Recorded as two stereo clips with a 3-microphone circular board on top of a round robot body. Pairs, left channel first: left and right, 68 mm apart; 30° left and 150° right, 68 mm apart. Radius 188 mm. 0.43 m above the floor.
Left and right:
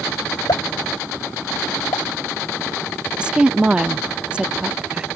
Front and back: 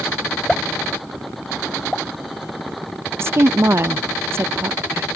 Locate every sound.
0.5 s a pop: 110° left
3.2 s a woman speaking: 155° right